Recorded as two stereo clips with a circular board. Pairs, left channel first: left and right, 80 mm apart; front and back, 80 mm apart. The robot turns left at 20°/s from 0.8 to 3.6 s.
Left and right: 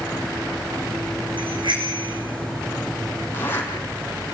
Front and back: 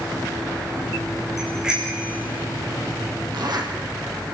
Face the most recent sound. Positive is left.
turn(degrees=150)